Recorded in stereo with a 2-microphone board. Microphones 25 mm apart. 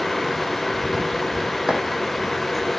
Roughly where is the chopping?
Right.